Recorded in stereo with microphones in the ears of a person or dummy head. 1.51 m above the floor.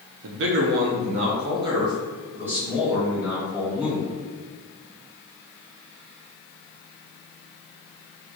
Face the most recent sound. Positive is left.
turn(degrees=-5)  # may be behind; listen again after turning